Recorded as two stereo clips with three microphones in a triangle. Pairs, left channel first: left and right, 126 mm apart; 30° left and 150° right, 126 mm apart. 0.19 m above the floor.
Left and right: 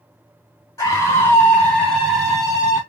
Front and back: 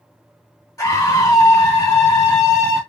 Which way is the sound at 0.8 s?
60° left.